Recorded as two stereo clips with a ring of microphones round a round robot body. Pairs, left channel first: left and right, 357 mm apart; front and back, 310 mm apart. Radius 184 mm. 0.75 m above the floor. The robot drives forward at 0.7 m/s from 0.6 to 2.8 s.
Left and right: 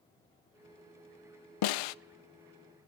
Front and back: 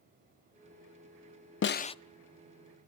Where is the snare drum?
55° left, 0.6 m; by 1.9 s 75° left, 0.5 m.